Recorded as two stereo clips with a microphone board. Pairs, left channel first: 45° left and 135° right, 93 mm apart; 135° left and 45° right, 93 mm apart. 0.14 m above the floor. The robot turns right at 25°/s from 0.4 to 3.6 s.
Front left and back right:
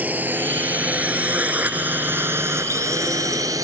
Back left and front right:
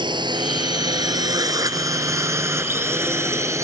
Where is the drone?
65° right; by 3.6 s 95° right.